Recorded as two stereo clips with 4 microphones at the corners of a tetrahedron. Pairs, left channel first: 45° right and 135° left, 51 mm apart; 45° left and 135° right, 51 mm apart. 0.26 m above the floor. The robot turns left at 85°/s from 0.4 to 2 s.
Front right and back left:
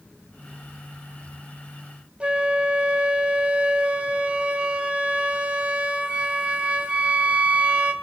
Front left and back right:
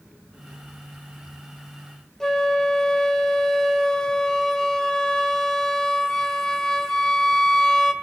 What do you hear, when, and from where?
2.2 s a flute: 110° left, 1.6 m